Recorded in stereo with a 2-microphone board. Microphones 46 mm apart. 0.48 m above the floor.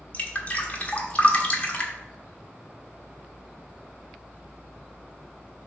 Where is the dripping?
30° left (ahead or behind), 1.2 m.